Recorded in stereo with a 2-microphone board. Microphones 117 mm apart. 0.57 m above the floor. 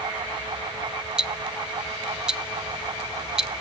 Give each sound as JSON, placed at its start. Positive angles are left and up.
{"t": 1.2, "sound": "ticking", "side_deg": -5, "distance_m": 0.5}